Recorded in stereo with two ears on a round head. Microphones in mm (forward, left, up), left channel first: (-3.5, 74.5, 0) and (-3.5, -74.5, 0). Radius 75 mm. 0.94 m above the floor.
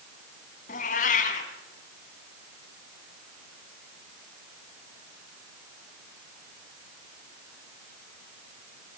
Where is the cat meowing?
50° left (ahead or behind), 3.5 m.